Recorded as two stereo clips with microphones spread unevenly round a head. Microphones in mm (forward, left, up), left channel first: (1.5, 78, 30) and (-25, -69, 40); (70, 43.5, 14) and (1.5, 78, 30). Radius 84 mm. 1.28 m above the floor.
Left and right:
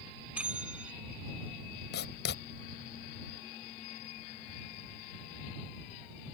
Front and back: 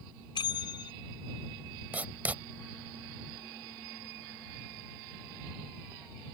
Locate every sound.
0.3 s a bell: 20° right
1.9 s writing: 90° left